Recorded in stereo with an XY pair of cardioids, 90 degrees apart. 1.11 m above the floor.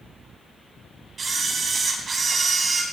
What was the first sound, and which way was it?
A camera shutter, 45° right.